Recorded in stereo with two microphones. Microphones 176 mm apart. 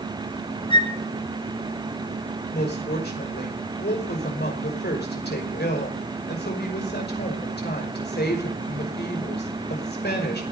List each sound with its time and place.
0.7 s a flute: 30° left (ahead or behind), 1.4 m
2.5 s a woman speaking: 70° left (ahead or behind), 5.5 m